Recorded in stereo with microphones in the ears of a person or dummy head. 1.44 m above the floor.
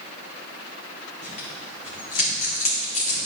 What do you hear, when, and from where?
1.2 s tearing paper: 45° left (ahead or behind), 1.9 m